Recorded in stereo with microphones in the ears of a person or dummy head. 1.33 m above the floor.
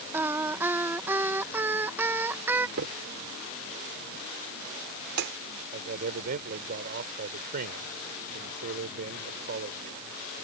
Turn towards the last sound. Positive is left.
turn(degrees=-60)  # may be behind; listen again after turning